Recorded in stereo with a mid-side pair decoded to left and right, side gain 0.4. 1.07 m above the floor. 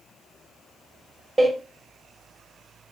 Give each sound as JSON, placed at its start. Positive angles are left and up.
{"t": 1.4, "sound": "a door slam", "azimuth_deg": -25, "distance_m": 3.5}